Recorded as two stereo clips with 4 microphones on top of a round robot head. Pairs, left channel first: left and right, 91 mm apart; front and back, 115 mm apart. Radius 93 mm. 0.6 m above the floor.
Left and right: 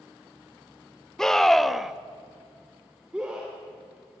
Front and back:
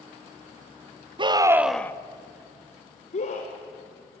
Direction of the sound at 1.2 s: 170° left.